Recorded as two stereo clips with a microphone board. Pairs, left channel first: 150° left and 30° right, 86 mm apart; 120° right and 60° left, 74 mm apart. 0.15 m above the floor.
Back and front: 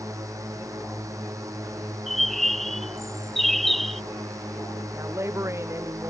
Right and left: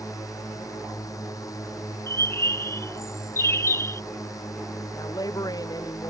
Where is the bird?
125° right.